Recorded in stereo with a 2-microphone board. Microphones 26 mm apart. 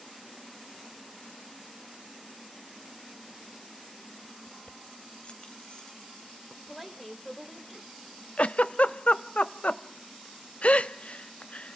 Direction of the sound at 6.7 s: Centre (ahead or behind).